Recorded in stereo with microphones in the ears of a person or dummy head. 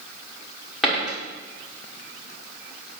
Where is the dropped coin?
Centre (ahead or behind), 1.7 m.